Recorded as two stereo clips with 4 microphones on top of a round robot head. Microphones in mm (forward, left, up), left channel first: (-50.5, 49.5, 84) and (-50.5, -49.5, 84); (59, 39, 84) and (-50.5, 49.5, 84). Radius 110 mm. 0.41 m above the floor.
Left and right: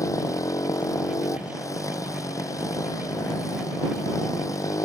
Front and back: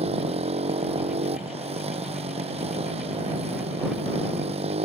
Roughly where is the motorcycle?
Behind left.